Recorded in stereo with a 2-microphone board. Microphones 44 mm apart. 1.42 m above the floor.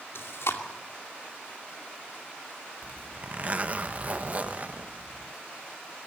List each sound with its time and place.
0.1 s chewing: 80° left, 2.5 m
2.8 s a zipper: 35° right (ahead or behind), 0.7 m